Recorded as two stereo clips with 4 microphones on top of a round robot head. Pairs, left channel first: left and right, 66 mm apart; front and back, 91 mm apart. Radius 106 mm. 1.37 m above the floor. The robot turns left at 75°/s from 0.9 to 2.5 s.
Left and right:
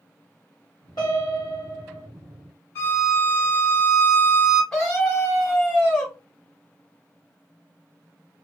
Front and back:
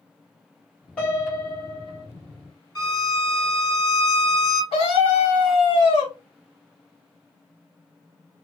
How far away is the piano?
About 1.3 m.